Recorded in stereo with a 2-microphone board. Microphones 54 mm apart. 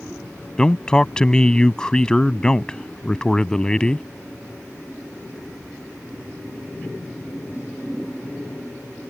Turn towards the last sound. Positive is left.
turn(degrees=15)  # may be behind; listen again after turning